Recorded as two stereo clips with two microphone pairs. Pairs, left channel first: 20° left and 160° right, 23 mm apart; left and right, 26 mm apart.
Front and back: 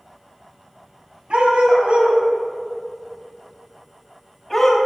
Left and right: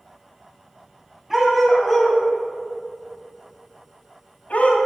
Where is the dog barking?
170° right, 2 m; by 4.8 s 95° left, 1.8 m.